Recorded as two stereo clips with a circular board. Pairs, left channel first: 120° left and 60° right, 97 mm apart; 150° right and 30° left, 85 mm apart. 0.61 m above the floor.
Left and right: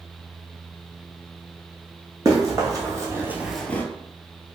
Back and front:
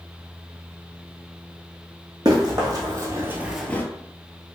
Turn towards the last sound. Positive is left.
turn(degrees=170)